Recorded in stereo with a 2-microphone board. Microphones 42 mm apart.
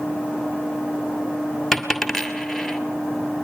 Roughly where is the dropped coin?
Centre.